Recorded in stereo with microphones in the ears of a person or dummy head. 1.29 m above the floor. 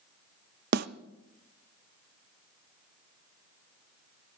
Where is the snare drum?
60° right (ahead or behind), 0.7 m.